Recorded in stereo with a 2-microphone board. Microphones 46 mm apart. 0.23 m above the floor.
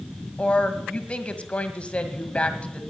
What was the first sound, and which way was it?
A woman speaking, 25° left (ahead or behind).